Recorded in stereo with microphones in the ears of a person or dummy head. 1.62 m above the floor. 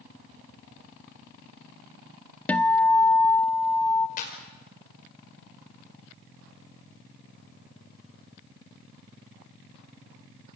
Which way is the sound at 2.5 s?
15° left (ahead or behind).